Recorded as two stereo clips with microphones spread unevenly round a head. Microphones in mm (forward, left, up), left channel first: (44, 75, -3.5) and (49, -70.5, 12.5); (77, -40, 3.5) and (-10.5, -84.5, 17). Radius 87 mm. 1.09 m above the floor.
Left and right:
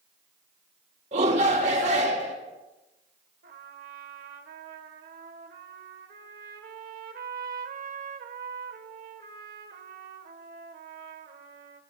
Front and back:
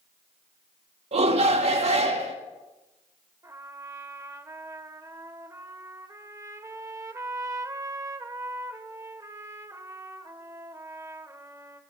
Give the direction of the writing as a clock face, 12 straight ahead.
No writing in this recording.